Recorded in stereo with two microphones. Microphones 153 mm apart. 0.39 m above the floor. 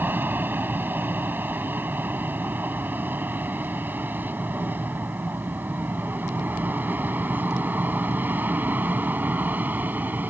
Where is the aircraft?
10° right (ahead or behind).